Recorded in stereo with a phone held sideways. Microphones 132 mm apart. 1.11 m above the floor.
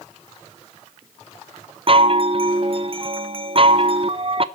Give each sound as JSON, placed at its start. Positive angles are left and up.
{"t": 1.9, "sound": "a chime", "side_deg": -45, "distance_m": 0.8}